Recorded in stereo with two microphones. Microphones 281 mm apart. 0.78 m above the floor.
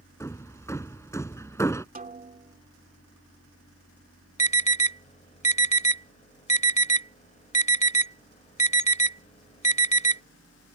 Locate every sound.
0.2 s hammering: 10° left (ahead or behind)
1.9 s a snare drum: 30° right (ahead or behind)
4.4 s an alarm: 25° left (ahead or behind)